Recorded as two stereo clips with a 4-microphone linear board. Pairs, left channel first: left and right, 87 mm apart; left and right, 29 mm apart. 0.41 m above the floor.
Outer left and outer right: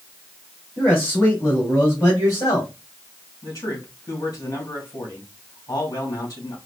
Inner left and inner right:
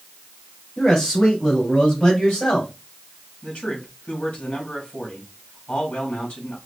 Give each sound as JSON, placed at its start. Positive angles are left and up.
{"t": 0.8, "sound": "a man speaking", "side_deg": 20, "distance_m": 3.0}
{"t": 3.4, "sound": "a man speaking", "side_deg": 40, "distance_m": 3.0}